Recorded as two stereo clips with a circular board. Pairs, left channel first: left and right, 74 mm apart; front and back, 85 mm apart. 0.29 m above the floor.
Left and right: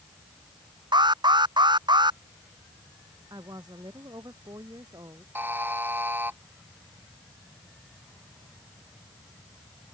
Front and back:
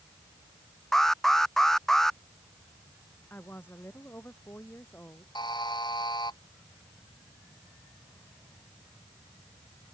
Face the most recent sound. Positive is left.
turn(degrees=-30)